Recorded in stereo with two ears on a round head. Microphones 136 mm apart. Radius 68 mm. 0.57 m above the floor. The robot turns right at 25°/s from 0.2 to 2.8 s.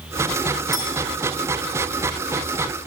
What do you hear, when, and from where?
0.7 s a clink: 30° left (ahead or behind), 5 m; by 0.9 s 25° left (ahead or behind), 5 m